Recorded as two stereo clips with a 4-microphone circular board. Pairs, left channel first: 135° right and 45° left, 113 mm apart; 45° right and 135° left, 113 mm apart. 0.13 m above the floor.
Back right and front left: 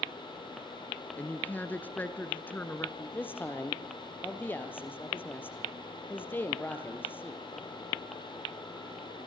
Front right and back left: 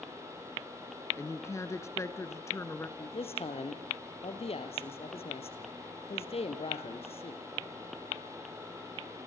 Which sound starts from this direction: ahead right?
A man speaking, at 3.0 s.